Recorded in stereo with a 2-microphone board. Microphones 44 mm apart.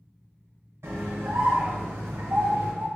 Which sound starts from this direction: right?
A scream, at 0.8 s.